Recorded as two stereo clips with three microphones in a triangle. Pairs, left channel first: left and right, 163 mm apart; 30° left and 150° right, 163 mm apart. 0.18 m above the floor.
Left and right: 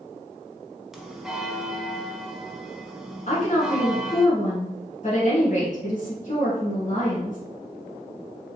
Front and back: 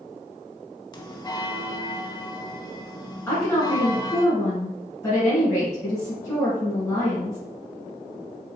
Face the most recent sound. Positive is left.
turn(degrees=95)